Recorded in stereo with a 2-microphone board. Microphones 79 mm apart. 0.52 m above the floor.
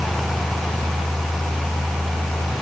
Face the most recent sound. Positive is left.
No sound to turn to.